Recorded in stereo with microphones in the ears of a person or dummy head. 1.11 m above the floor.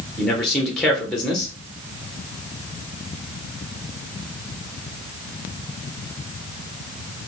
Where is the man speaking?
Centre (ahead or behind), 0.8 m.